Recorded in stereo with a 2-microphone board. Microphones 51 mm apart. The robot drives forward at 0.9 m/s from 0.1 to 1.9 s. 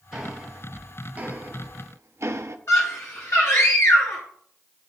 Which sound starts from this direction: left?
A scream, at 2.7 s.